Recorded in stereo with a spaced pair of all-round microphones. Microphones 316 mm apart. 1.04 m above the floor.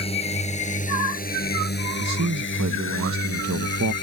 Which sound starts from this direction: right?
A man speaking, at 2.0 s.